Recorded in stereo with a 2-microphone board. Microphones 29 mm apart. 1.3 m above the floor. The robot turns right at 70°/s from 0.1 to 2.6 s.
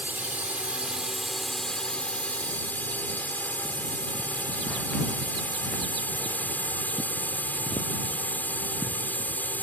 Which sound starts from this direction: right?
A drone, at 0.0 s.